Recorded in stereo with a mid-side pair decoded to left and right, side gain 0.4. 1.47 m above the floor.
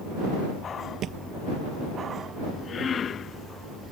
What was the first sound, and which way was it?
A thud, 70° right.